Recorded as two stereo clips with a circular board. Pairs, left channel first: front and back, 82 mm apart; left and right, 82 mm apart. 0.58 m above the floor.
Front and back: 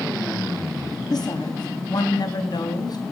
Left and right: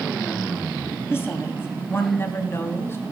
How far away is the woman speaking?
About 4 m.